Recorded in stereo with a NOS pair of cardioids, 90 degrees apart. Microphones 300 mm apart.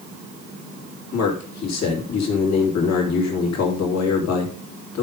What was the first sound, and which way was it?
A man speaking, 60° left.